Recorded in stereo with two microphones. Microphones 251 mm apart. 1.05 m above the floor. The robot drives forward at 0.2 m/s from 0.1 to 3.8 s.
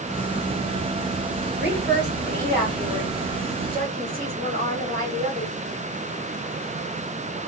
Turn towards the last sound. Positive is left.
turn(degrees=-35)  # may be behind; listen again after turning